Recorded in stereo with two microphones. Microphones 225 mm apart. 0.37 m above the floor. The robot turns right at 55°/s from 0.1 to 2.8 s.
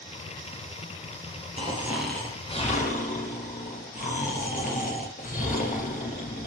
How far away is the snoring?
About 2.5 m.